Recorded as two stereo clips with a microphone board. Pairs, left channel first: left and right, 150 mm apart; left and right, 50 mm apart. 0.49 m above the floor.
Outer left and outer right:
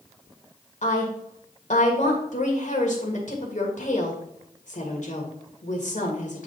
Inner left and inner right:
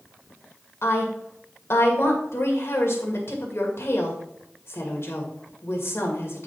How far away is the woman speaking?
About 2 m.